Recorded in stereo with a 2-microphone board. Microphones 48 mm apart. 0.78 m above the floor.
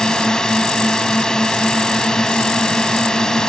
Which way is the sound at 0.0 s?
15° left (ahead or behind).